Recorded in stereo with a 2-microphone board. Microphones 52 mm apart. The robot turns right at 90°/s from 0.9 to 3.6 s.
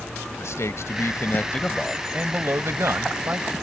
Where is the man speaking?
95° left; by 3.5 s 30° right.